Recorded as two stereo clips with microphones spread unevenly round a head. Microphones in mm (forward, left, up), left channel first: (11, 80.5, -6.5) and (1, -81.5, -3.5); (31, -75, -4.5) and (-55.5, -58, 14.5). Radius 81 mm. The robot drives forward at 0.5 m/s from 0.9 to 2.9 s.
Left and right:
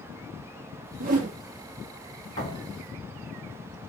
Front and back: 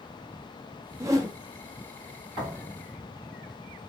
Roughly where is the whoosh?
Behind right.